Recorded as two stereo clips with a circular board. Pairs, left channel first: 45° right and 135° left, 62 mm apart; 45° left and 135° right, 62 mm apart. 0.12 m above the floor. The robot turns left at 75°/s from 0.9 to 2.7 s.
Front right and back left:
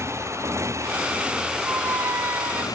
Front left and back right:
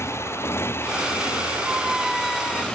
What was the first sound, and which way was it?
A motorcycle, 90° left.